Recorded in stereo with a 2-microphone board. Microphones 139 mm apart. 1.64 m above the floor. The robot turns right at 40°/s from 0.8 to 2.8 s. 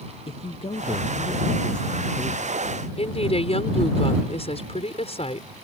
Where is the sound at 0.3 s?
135° left; by 2.8 s 145° right.